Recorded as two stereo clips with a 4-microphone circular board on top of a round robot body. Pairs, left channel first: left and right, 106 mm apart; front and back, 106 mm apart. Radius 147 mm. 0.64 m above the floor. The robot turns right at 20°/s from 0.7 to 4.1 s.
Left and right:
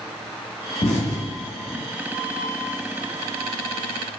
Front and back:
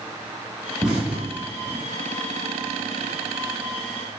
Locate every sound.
0.8 s an explosion: 95° left, 1.0 m; by 1.8 s 115° left, 1.0 m